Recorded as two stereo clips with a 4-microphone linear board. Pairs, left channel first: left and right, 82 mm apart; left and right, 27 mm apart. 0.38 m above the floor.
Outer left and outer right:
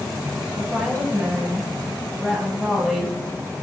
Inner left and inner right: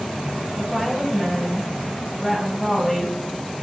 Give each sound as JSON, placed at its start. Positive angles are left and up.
{"t": 0.6, "sound": "a woman speaking", "side_deg": -15, "distance_m": 7.0}